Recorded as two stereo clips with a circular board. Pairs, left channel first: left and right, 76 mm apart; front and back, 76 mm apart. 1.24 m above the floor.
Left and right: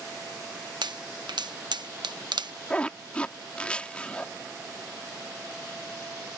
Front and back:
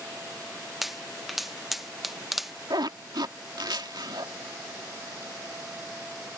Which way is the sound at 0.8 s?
95° right.